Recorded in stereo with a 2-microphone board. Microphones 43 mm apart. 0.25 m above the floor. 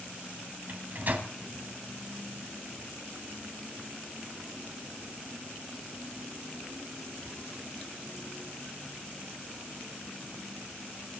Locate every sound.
0.7 s a microwave: 45° right (ahead or behind), 1.6 m